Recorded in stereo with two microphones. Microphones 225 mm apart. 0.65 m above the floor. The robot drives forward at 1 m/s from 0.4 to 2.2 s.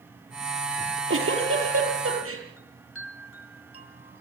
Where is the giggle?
60° right (ahead or behind), 7.5 m; by 2.4 s 70° right (ahead or behind), 7 m.